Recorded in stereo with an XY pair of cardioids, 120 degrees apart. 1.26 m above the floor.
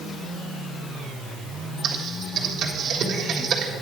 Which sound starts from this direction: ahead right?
Typing on a keyboard, at 1.8 s.